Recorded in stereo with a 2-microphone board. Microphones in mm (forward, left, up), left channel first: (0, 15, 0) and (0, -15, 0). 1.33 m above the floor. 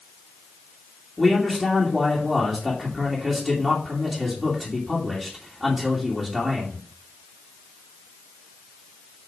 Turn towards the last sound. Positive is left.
turn(degrees=-5)  # may be behind; listen again after turning